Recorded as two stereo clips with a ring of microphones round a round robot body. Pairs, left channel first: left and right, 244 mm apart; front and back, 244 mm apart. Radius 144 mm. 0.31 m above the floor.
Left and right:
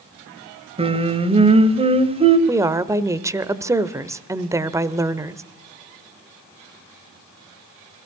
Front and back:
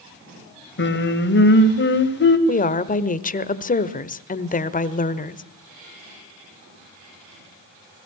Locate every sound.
0.8 s singing: 30° right, 1.8 m
2.5 s a woman speaking: 20° right, 1.1 m